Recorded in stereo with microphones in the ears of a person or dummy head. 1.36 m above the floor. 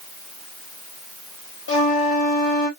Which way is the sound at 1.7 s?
85° left.